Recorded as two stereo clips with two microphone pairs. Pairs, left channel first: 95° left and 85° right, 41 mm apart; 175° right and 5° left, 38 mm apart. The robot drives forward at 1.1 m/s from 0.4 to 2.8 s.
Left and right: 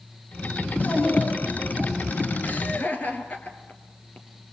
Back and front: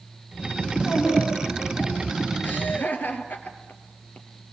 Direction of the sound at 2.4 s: 140° left.